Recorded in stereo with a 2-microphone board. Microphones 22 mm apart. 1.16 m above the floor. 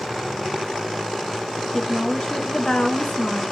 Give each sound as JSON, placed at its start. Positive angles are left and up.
{"t": 1.7, "sound": "a woman speaking", "side_deg": 50, "distance_m": 1.7}